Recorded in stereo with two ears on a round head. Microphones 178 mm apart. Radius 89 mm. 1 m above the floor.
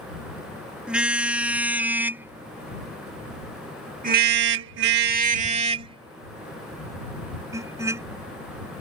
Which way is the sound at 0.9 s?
5° right (ahead or behind).